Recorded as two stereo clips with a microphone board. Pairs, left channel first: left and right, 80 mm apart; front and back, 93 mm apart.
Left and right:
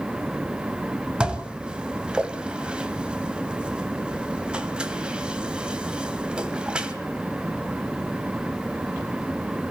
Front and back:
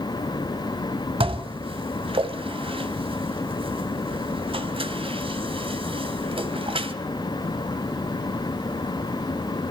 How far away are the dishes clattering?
About 2 m.